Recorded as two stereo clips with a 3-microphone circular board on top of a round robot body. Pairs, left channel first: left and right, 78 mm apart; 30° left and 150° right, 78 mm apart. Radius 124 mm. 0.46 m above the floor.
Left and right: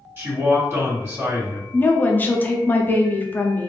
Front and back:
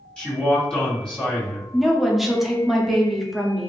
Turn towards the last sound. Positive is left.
turn(degrees=125)